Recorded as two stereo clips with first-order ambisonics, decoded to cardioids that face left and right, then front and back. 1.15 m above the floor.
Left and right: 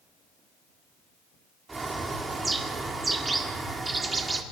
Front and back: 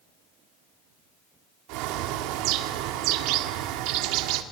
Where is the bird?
165° right, 1.7 m.